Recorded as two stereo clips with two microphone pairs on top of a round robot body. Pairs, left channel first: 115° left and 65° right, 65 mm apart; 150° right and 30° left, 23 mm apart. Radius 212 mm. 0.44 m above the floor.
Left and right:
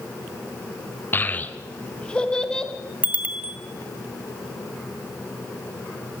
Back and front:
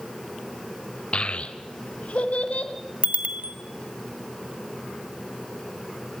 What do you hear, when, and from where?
1.1 s a child speaking: 170° left, 1.4 m; by 2.7 s 170° right, 2.5 m
3.0 s a bicycle bell: straight ahead, 2 m